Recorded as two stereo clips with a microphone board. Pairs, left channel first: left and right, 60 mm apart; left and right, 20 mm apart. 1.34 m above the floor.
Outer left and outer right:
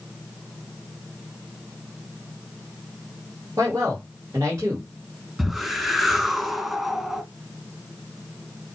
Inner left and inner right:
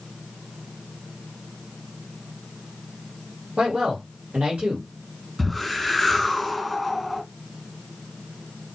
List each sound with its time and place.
3.6 s a man speaking: 75° right (ahead or behind), 2 m
5.4 s a whoosh: 10° right (ahead or behind), 1.8 m